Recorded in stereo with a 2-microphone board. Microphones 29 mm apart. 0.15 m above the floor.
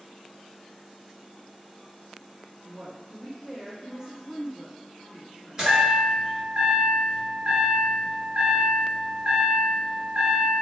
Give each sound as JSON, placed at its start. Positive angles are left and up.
{"t": 2.6, "sound": "a woman speaking", "side_deg": -15, "distance_m": 1.3}
{"t": 5.6, "sound": "a chime", "side_deg": -25, "distance_m": 1.7}